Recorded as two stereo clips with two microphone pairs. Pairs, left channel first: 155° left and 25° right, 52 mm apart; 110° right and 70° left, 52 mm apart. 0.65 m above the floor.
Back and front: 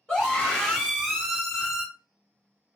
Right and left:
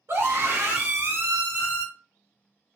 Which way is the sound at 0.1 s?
95° left.